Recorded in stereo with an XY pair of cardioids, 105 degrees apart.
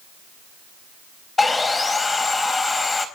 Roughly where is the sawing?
Ahead left.